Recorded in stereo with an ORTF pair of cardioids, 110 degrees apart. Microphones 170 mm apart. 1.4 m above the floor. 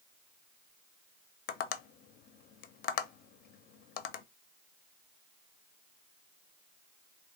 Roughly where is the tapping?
Left.